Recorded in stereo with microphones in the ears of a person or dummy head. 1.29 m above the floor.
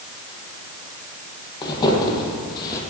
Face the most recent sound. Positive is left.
turn(degrees=20)  # may be behind; listen again after turning